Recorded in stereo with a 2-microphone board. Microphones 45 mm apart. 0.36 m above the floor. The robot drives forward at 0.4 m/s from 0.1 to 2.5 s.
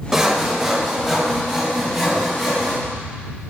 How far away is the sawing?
About 0.6 m.